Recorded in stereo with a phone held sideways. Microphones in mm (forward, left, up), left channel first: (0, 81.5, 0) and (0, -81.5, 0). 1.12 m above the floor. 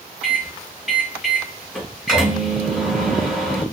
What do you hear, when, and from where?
0.2 s a microwave: centre (ahead or behind), 2.5 m